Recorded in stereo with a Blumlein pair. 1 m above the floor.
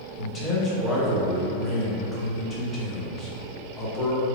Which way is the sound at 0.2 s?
15° left.